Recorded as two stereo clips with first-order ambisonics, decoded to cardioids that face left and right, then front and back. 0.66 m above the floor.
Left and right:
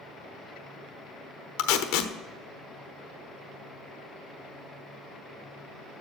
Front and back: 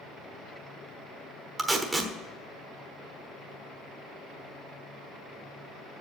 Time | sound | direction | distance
1.6 | tape being pulled | 100° left | 1.0 m